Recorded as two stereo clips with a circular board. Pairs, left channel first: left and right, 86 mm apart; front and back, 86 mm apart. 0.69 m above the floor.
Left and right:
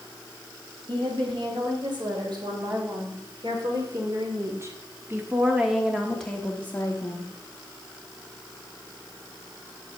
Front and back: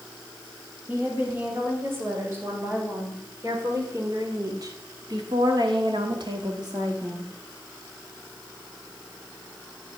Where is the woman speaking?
115° right, 3.5 m; by 7.3 s 140° left, 1.4 m.